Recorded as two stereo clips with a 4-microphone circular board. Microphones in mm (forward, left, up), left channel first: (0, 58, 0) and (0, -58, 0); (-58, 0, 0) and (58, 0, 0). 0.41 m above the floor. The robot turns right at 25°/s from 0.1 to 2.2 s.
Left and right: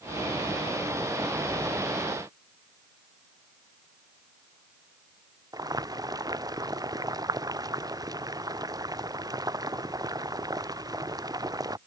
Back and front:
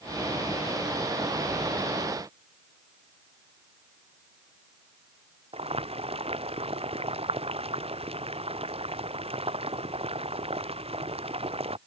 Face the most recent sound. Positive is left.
turn(degrees=-30)